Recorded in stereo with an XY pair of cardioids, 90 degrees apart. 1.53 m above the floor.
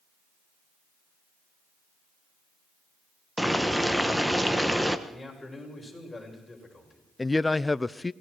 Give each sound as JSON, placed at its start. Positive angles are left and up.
{"t": 3.4, "sound": "boiling", "azimuth_deg": -5, "distance_m": 1.4}
{"t": 5.1, "sound": "a man speaking", "azimuth_deg": 20, "distance_m": 8.0}
{"t": 7.2, "sound": "a man speaking", "azimuth_deg": 20, "distance_m": 0.6}